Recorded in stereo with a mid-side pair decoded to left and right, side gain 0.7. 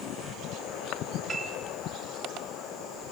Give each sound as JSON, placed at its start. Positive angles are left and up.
{"t": 1.3, "sound": "a piano", "azimuth_deg": -20, "distance_m": 7.0}